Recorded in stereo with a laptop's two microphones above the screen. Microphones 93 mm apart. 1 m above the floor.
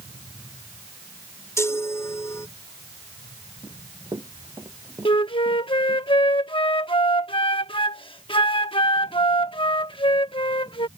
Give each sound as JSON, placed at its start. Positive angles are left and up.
{"t": 1.6, "sound": "a chime", "side_deg": 30}
{"t": 3.6, "sound": "running footsteps", "side_deg": -50}
{"t": 5.0, "sound": "a flute", "side_deg": 70}